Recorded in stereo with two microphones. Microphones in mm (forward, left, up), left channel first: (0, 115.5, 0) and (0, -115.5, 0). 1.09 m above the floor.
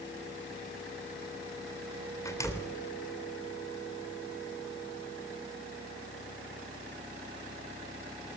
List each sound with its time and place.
2.2 s a door slam: 15° left (ahead or behind), 3 m